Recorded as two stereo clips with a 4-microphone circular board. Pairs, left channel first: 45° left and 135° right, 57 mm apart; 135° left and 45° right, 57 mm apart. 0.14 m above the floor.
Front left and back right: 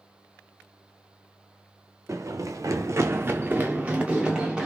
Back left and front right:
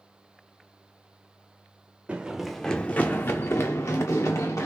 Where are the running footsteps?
110° right, 0.5 m; by 4.7 s 150° left, 1.2 m.